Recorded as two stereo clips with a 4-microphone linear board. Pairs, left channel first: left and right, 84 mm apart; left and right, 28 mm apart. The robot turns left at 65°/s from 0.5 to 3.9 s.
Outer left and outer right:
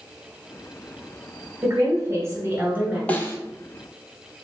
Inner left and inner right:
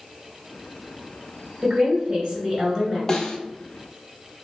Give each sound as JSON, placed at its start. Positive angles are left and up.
{"t": 1.6, "sound": "a woman speaking", "azimuth_deg": -60, "distance_m": 1.4}
{"t": 3.1, "sound": "a snare drum", "side_deg": 15, "distance_m": 0.6}